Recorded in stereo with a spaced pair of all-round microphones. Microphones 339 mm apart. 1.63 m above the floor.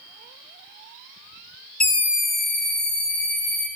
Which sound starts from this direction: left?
A scream, at 1.8 s.